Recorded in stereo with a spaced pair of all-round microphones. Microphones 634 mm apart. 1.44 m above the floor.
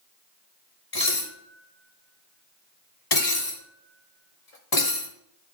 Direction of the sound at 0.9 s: 70° left (ahead or behind).